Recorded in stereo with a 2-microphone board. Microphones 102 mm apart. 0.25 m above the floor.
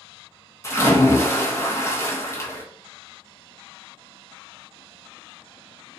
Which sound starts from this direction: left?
A splash, at 0.6 s.